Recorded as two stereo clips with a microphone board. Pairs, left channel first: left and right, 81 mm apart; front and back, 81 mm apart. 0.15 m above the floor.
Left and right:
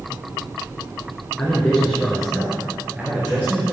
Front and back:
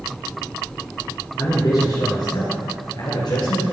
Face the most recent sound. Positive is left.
turn(degrees=-25)